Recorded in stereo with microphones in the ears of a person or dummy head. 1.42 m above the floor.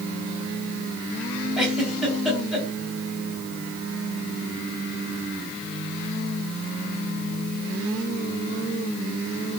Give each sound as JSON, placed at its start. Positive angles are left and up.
{"t": 1.6, "sound": "a giggle", "side_deg": 0, "distance_m": 3.5}